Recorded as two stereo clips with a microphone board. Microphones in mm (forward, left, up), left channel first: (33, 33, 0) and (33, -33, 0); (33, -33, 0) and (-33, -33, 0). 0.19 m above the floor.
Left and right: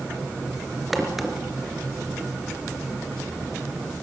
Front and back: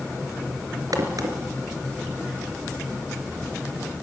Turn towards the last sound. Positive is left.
turn(degrees=-175)